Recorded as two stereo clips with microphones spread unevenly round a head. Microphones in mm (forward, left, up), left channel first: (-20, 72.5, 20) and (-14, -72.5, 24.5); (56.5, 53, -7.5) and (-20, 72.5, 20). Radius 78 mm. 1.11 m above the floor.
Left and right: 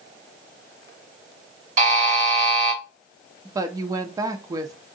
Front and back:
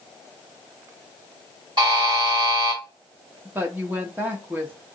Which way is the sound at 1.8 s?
125° right.